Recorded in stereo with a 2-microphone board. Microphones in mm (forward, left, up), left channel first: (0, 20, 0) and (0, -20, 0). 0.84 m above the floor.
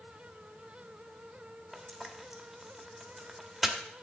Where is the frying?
5° right (ahead or behind), 1.0 m.